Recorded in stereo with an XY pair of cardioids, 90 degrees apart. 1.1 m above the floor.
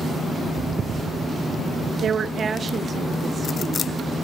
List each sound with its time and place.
2.0 s a woman speaking: 65° right, 0.7 m; by 3.9 s 40° right, 1.9 m